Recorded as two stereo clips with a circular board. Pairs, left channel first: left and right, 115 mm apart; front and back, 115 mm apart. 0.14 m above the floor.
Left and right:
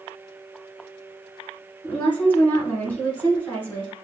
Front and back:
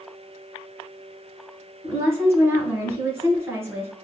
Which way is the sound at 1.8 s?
145° left.